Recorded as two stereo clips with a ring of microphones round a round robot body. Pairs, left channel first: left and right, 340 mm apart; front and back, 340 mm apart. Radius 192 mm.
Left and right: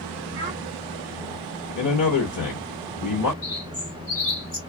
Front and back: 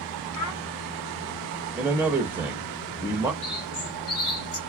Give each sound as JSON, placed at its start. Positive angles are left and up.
{"t": 0.3, "sound": "a child speaking", "azimuth_deg": -15, "distance_m": 1.3}
{"t": 1.8, "sound": "a man speaking", "azimuth_deg": 100, "distance_m": 0.9}
{"t": 3.4, "sound": "a bird", "azimuth_deg": 20, "distance_m": 1.9}